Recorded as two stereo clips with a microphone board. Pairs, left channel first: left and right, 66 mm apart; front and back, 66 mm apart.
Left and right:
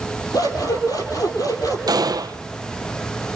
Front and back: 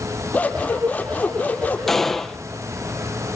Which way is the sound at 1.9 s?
85° right.